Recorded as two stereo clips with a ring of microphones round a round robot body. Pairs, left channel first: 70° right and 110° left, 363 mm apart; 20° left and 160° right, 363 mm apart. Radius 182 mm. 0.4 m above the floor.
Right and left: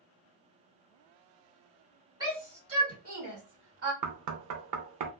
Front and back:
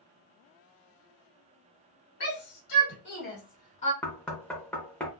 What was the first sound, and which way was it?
A shout, 40° left.